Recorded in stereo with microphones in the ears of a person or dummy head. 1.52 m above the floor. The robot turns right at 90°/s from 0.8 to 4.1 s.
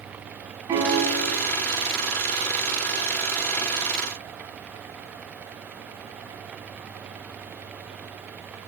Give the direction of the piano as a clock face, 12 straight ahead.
12 o'clock.